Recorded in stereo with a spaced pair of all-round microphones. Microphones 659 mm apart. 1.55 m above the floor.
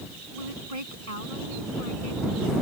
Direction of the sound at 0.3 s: 60° right (ahead or behind).